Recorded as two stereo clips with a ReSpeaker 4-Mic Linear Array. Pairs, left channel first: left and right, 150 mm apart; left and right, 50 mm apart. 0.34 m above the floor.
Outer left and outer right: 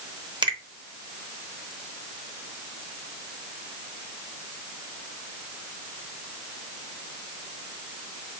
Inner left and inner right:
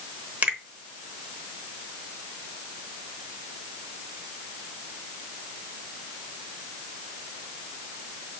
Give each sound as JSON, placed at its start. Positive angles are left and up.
{"t": 0.4, "sound": "a finger snap", "side_deg": -30, "distance_m": 0.9}